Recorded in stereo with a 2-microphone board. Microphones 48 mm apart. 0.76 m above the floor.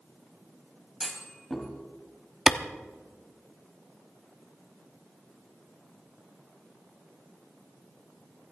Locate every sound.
1.0 s a clunk: centre (ahead or behind), 3 m
2.5 s a clap: 10° right (ahead or behind), 0.8 m